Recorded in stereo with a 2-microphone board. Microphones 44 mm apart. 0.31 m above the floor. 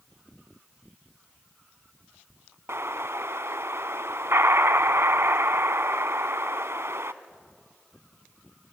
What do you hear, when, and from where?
2.7 s an explosion: 75° right (ahead or behind), 0.6 m